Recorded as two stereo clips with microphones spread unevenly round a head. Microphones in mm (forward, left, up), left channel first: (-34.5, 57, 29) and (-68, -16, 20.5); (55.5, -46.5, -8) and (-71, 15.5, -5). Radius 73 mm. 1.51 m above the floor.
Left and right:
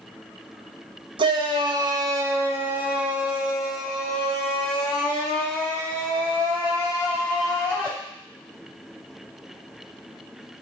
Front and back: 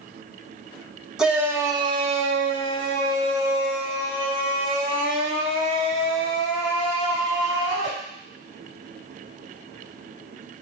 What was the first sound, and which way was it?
A shout, 120° right.